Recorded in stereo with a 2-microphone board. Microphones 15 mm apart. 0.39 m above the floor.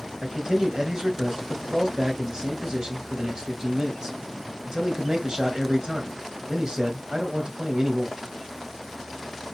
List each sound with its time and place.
0.2 s a man speaking: 50° right (ahead or behind), 1.8 m